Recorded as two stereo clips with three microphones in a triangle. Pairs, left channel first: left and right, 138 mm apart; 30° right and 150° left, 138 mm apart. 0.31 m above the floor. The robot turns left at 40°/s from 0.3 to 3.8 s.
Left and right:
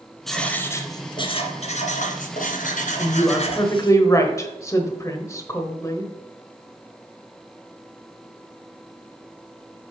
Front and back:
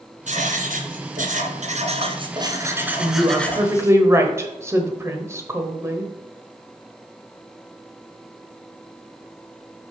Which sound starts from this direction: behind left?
A woman speaking, at 3.0 s.